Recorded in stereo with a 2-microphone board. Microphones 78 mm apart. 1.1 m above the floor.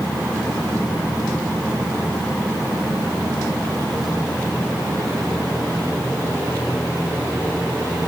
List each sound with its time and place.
Only background noise.